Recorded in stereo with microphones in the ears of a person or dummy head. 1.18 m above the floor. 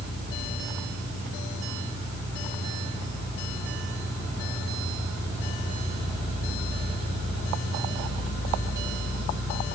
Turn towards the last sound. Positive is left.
No sound to turn to.